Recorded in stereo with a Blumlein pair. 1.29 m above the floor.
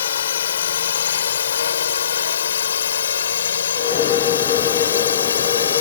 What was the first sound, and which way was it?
A drone, 65° left.